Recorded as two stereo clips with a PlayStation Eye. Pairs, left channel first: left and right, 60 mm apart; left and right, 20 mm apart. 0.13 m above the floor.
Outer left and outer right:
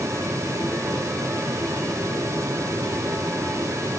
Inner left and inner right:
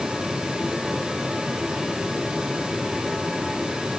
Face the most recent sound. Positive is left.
No sound to turn to.